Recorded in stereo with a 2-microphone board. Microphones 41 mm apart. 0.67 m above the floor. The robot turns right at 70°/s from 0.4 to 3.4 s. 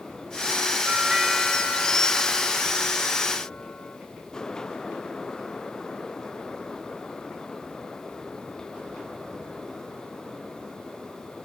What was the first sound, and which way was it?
A doorbell, 30° right.